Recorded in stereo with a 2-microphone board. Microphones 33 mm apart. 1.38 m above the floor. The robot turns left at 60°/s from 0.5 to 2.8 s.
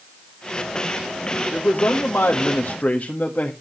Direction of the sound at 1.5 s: 135° left.